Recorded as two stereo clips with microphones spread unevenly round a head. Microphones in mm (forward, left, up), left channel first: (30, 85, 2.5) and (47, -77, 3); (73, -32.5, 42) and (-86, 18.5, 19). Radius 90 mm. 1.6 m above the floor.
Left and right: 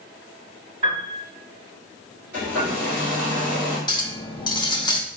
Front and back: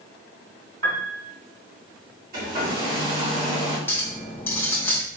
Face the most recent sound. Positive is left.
turn(degrees=45)